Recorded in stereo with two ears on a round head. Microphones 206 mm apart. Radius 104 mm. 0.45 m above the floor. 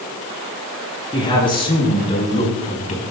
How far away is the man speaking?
About 5.5 m.